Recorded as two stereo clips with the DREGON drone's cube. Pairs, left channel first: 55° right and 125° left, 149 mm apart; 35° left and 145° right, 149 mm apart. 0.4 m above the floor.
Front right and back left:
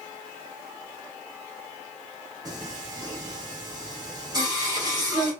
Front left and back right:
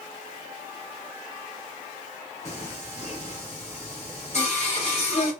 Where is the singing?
65° left, 1.6 m.